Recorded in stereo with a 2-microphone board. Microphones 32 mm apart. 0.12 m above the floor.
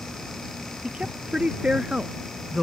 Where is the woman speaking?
35° right (ahead or behind); by 2.6 s 15° right (ahead or behind).